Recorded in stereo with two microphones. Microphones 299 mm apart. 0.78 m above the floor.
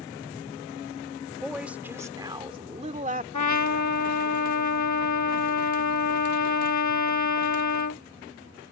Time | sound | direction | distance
1.4 | a woman speaking | centre (ahead or behind) | ?
3.3 | a trumpet | 70° left (ahead or behind) | ?